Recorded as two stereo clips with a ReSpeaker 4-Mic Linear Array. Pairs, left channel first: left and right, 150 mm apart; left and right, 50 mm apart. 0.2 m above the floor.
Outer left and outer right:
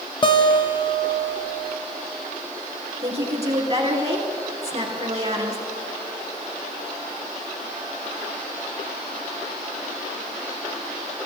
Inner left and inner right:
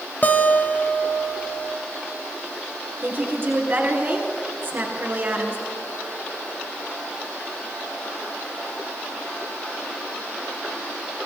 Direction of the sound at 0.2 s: 35° left (ahead or behind).